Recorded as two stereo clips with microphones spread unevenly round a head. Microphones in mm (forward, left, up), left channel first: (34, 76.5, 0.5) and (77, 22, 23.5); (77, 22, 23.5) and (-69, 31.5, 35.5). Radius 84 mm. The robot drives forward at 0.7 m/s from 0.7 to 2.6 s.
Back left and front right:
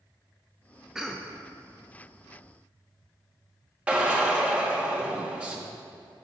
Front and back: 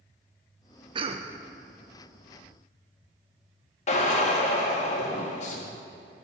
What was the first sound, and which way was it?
A cough, 165° right.